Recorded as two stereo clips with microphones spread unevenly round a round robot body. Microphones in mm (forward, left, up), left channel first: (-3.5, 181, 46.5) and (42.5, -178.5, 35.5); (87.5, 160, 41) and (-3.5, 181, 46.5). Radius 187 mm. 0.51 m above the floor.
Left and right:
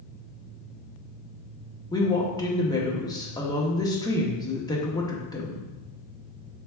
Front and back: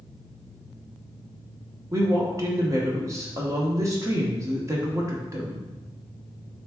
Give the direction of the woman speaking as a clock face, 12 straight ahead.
6 o'clock.